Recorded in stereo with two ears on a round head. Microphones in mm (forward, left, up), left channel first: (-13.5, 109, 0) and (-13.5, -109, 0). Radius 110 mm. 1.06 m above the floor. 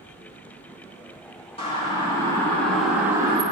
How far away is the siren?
About 3 m.